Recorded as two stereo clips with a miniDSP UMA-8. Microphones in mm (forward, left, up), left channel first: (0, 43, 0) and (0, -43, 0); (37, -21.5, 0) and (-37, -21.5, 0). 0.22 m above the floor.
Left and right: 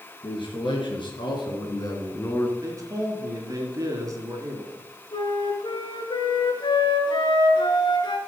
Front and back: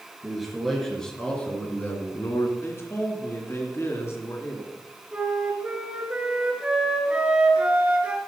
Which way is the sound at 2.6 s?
50° right.